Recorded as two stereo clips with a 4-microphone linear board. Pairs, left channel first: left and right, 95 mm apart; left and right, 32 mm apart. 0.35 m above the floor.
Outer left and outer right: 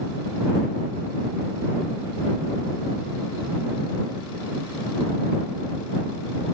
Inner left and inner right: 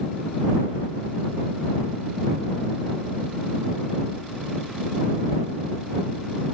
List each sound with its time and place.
Only background noise.